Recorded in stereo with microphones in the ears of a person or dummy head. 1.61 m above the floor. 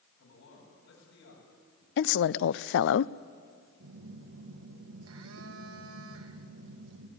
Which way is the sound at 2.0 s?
65° left (ahead or behind).